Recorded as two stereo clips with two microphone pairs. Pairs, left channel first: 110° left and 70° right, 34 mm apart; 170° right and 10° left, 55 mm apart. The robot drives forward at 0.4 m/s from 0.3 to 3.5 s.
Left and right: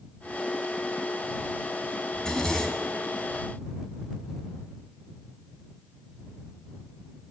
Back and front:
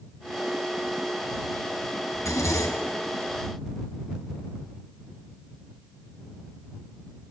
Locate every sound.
2.1 s a zipper: straight behind, 4.5 m